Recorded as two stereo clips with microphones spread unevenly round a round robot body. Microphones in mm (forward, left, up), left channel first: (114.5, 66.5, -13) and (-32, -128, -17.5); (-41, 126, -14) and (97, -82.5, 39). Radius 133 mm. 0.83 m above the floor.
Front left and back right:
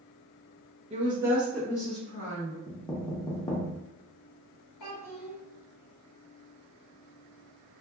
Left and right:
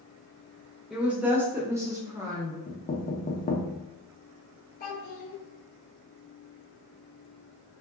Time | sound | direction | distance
0.9 | a woman speaking | 165° right | 0.8 m
2.7 | knocking | 125° left | 0.5 m
4.8 | a child speaking | 70° left | 1.2 m